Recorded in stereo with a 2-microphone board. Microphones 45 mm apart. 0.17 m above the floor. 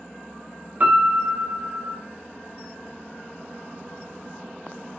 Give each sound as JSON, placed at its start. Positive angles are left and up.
{"t": 0.8, "sound": "a piano", "side_deg": -40, "distance_m": 0.9}